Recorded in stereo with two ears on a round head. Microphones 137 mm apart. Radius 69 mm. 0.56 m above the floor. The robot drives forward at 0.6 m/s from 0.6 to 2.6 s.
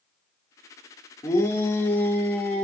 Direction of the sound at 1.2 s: 20° left (ahead or behind).